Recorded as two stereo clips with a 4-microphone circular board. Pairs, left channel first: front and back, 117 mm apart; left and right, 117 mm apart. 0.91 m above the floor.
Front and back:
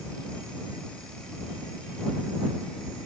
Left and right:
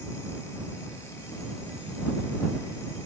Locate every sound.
Only background noise.